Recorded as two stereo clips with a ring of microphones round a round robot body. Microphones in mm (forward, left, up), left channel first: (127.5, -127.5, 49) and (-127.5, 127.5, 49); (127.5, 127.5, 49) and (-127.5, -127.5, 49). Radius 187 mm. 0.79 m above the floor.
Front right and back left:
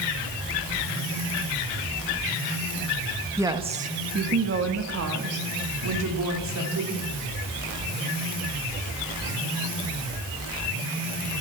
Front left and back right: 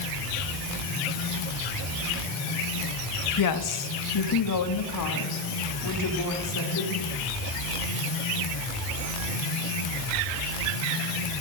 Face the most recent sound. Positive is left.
turn(degrees=90)